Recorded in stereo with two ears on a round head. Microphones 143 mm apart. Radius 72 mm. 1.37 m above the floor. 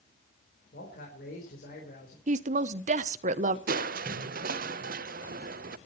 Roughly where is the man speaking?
Left.